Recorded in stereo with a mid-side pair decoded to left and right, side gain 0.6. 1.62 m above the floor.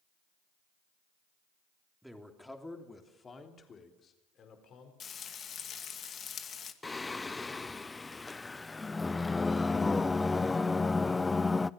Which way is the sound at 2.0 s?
5° right.